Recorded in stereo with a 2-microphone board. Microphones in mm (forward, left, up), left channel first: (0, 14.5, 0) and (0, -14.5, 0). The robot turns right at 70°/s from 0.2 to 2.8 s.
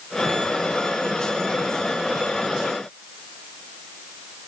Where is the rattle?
I don't hear a rattle.